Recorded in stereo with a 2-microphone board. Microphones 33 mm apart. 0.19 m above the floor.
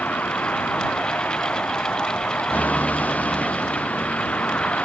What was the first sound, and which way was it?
A vehicle, 60° left (ahead or behind).